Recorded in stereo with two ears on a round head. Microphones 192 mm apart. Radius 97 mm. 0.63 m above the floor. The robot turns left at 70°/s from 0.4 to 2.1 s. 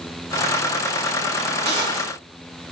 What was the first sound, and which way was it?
A gunshot, 135° right.